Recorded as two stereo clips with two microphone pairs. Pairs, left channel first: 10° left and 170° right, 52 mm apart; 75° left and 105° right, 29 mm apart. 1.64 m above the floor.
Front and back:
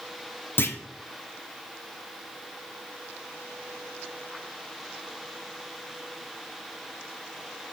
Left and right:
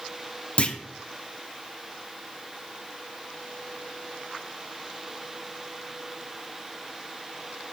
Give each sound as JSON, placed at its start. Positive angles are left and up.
{"t": 0.6, "sound": "a clunk", "azimuth_deg": 40, "distance_m": 0.5}